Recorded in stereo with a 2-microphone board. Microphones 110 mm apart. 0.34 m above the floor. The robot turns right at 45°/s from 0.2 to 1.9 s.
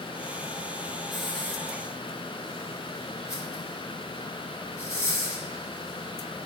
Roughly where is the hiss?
Centre.